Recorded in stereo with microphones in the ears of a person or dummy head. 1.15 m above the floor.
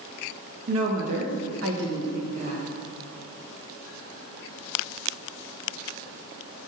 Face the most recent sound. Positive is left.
turn(degrees=-30)  # may be behind; listen again after turning